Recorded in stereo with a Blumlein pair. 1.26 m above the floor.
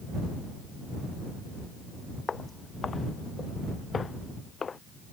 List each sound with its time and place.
2.3 s footsteps: 15° left